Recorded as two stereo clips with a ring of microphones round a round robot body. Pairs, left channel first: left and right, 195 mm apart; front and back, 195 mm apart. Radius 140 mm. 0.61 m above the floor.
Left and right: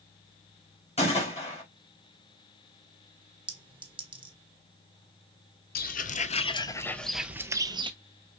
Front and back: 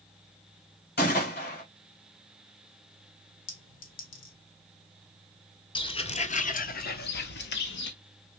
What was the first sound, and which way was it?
A gunshot, 35° left.